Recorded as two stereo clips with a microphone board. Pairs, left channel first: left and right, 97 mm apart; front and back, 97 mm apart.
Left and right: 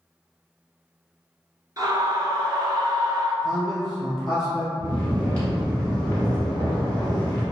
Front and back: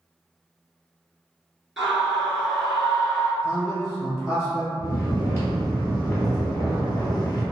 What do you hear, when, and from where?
1.8 s a scream: 90° right, 1.8 m
3.4 s a man speaking: 5° right, 2.0 m
4.8 s snoring: 25° left, 1.8 m